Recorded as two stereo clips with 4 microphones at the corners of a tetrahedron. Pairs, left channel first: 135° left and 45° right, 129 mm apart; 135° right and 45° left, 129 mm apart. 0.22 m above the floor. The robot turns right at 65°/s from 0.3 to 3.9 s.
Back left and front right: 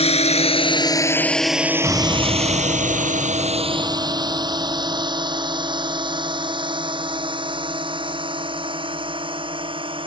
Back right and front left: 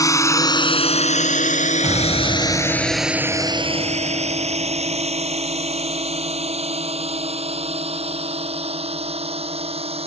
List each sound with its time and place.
0.0 s a drone: 165° left; by 10.1 s 5° left
1.8 s an explosion: 20° left; by 5.1 s 155° left